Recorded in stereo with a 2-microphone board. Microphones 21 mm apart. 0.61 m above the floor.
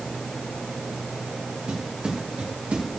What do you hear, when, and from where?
1.7 s footsteps: 80° right, 6 m; by 2.9 s 85° right, 5.5 m